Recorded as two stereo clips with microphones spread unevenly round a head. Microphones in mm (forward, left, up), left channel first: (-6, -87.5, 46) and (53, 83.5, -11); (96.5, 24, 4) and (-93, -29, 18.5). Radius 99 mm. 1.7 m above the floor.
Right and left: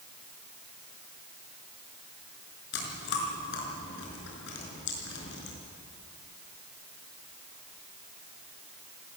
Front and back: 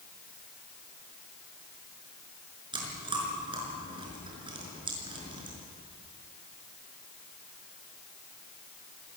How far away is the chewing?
About 5.5 m.